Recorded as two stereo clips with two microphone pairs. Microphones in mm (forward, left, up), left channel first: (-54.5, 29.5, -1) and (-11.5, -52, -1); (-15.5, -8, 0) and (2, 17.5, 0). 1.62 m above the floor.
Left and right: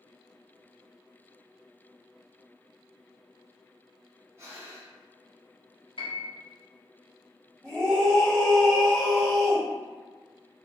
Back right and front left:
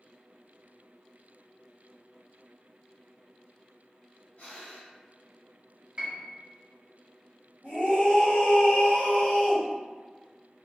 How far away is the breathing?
About 1.0 m.